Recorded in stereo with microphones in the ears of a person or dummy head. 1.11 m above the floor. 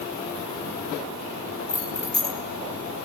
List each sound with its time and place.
1.7 s keys jangling: 40° left (ahead or behind), 2.5 m